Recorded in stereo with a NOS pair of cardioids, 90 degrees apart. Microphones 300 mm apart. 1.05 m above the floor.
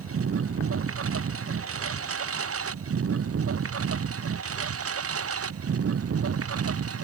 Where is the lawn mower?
45° right.